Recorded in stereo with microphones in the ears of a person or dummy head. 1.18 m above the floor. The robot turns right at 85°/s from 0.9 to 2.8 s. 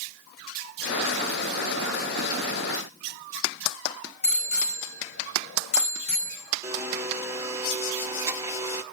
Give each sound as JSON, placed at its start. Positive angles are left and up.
{"t": 4.2, "sound": "a bicycle bell", "side_deg": 85, "distance_m": 4.5}
{"t": 6.6, "sound": "a blender", "side_deg": -15, "distance_m": 1.3}